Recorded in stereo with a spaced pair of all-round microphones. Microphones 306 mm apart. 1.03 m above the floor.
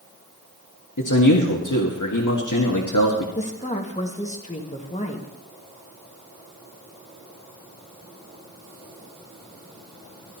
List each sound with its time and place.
1.0 s a man speaking: 80° left, 1.6 m
3.4 s a woman speaking: 25° left (ahead or behind), 1.6 m